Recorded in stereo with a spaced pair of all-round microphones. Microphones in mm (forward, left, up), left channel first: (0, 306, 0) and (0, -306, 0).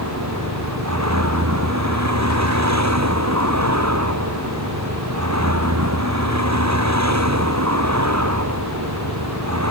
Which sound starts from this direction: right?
A vehicle, at 0.0 s.